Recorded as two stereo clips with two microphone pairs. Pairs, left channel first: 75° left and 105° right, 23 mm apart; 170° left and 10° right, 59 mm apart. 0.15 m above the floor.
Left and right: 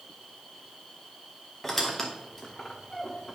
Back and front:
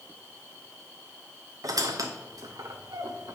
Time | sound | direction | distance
1.6 | a squeak | 5° right | 1.2 m